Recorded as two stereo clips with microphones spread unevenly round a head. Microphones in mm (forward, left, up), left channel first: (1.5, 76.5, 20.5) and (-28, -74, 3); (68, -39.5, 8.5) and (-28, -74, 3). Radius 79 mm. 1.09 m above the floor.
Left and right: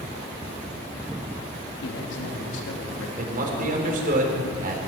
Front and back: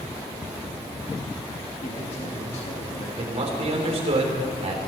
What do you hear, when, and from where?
1.8 s a man speaking: 65° left, 2.5 m
3.2 s a man speaking: 140° right, 3 m